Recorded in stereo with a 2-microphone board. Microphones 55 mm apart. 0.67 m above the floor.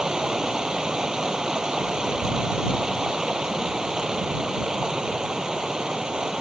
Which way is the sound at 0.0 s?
10° right (ahead or behind).